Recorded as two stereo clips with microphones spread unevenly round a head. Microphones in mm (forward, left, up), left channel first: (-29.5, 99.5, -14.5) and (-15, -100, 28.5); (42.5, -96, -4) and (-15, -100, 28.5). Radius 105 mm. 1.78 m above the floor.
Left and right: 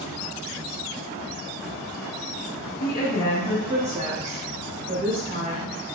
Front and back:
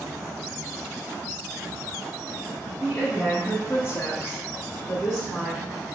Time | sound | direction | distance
2.8 | a woman speaking | 105° left | 0.9 m